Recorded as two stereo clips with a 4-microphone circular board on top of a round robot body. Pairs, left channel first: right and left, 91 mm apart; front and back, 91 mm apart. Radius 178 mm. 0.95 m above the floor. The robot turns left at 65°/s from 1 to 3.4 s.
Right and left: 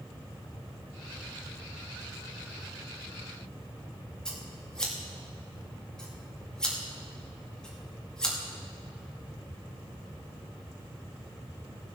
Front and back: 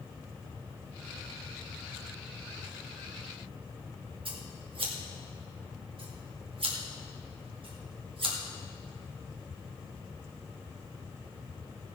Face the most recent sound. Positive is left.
turn(degrees=-170)